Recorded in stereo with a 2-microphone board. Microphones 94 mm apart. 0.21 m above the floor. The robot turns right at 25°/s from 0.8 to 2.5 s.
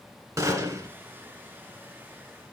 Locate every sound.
0.4 s a gunshot: 35° right (ahead or behind), 2 m